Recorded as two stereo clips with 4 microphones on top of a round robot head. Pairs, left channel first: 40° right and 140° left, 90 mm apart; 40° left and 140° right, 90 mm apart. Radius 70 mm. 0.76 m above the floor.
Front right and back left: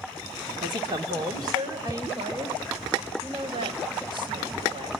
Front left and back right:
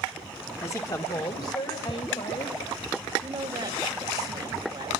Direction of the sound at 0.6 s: 105° left.